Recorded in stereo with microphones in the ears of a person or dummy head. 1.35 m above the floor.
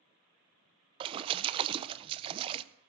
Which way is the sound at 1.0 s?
25° right (ahead or behind).